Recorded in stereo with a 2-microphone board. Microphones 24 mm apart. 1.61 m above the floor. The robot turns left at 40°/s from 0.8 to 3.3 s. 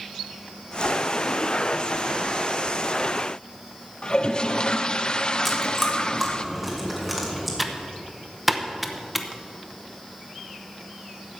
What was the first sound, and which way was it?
A toilet flushing, 35° left (ahead or behind).